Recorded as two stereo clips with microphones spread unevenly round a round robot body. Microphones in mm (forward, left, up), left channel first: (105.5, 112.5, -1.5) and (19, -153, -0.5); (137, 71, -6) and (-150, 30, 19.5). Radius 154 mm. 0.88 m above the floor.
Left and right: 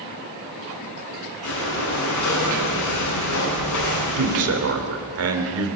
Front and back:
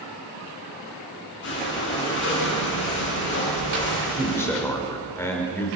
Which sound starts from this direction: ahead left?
Breathing, at 1.4 s.